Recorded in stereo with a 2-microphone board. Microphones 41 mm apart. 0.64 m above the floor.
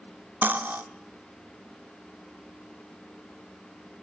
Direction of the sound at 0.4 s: 50° right (ahead or behind).